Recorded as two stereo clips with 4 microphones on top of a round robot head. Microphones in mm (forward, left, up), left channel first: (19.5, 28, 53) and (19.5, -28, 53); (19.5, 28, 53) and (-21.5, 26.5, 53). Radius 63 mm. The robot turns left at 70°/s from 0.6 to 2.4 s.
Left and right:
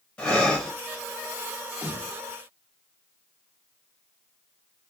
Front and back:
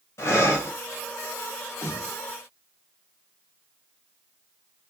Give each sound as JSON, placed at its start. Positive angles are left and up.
{"t": 0.2, "sound": "breathing", "azimuth_deg": 20, "distance_m": 1.4}
{"t": 1.8, "sound": "a snare drum", "azimuth_deg": -35, "distance_m": 2.5}